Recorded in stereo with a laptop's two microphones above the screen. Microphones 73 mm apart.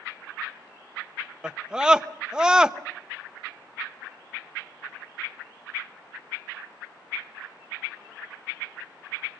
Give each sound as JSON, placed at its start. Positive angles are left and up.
{"t": 1.4, "sound": "a scream", "side_deg": -10, "distance_m": 1.0}